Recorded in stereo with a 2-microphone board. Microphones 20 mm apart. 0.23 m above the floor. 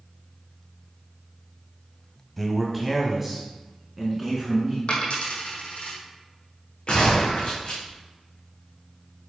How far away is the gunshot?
About 3.5 m.